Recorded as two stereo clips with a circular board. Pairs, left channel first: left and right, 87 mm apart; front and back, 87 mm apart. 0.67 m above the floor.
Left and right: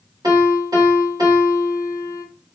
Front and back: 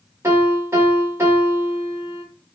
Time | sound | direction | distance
0.2 | a piano | 125° right | 2.5 m